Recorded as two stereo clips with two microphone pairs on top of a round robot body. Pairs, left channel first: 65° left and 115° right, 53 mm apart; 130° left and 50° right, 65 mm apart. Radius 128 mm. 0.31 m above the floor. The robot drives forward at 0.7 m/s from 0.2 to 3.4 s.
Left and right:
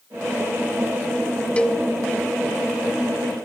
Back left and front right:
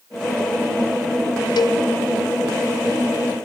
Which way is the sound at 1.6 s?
135° left.